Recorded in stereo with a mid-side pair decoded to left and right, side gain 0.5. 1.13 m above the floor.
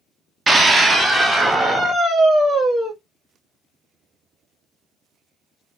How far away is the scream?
About 0.9 m.